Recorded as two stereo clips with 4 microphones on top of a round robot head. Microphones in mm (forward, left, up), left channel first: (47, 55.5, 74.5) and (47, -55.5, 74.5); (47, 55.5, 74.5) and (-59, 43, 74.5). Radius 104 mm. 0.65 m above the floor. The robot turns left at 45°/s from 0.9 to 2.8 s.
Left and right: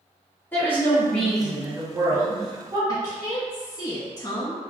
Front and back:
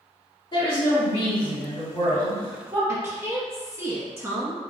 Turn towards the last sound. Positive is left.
turn(degrees=125)